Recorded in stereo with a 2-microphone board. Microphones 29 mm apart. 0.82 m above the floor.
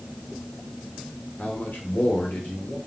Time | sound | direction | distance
1.4 | a man speaking | 75° left (ahead or behind) | 2 m